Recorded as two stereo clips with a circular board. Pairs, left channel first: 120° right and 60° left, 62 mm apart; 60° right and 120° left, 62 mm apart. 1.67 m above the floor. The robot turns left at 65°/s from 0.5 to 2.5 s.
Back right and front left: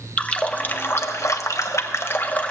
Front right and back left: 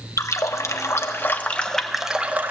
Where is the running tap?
55° right, 1.1 m; by 2.5 s 175° left, 1.1 m.